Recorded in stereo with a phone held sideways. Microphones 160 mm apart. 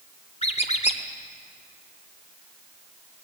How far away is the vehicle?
I don't hear a vehicle.